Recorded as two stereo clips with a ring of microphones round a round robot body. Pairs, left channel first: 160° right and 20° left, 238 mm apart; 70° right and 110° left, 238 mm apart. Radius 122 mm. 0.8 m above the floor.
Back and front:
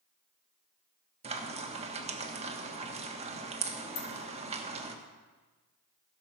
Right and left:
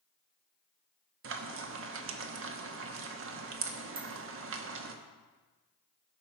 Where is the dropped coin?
175° right, 2.5 m.